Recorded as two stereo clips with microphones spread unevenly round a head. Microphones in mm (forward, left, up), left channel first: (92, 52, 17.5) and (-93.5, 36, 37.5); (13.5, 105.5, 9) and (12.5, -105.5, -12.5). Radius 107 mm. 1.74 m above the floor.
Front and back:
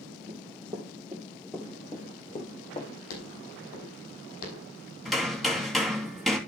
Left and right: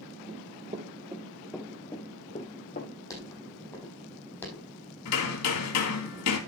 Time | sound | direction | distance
0.3 | running footsteps | 130° right | 2.5 m
3.1 | footsteps | 15° left | 5.5 m
5.0 | hammering | 95° left | 3 m